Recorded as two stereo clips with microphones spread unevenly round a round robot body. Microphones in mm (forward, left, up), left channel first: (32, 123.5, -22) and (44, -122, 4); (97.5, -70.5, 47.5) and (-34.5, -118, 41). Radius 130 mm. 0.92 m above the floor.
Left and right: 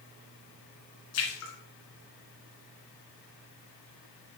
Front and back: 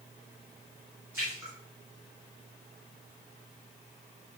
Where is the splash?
120° left, 2.5 m.